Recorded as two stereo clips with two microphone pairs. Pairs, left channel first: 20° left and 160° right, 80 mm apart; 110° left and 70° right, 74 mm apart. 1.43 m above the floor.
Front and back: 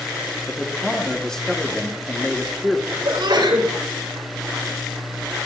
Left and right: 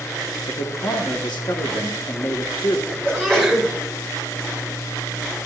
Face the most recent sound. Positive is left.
turn(degrees=-165)